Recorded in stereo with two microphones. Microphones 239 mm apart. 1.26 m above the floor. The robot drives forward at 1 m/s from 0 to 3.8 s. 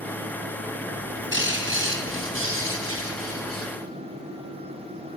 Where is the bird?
50° right (ahead or behind), 7 m; by 3.7 s 70° right (ahead or behind), 5.5 m.